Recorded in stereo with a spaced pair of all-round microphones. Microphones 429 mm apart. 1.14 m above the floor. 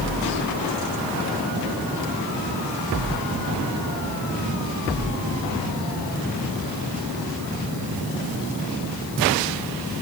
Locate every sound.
Only background noise.